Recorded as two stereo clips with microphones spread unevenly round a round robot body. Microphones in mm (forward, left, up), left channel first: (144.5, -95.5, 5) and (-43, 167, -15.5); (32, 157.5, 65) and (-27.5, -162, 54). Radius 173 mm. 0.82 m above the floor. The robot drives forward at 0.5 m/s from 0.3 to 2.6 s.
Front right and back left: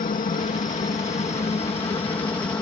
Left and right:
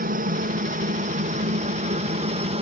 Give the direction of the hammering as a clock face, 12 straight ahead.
No hammering in this recording.